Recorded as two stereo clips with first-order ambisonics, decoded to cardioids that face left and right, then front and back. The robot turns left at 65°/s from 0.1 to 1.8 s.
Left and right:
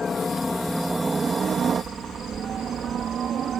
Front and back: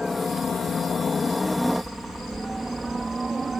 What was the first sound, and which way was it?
A helicopter, 55° left.